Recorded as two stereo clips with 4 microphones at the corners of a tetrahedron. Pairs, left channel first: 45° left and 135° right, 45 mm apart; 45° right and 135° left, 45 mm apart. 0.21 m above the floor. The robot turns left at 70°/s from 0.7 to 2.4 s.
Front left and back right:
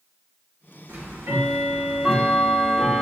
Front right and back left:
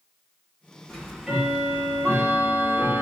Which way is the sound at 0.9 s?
115° right.